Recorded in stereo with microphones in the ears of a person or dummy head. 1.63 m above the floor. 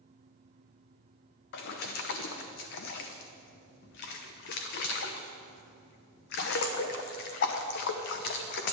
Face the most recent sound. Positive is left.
turn(degrees=55)  # may be behind; listen again after turning